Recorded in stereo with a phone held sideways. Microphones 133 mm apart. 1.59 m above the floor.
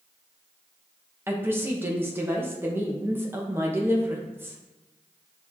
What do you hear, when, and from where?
1.3 s a woman speaking: 15° right (ahead or behind), 1.2 m